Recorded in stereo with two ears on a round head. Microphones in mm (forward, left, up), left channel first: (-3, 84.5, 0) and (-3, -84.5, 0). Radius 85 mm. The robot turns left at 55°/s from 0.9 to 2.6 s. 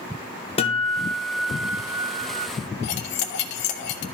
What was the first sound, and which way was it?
A guitar, 30° left.